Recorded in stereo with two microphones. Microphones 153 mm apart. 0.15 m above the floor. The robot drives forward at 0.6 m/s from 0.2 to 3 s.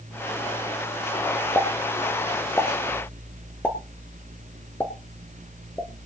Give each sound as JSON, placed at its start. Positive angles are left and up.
{"t": 1.6, "sound": "a pop", "side_deg": 15, "distance_m": 1.8}